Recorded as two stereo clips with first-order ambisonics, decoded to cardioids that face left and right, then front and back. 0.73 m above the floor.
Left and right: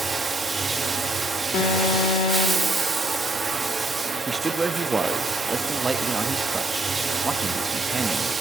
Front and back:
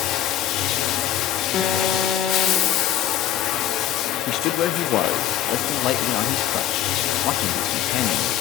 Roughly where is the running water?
Ahead.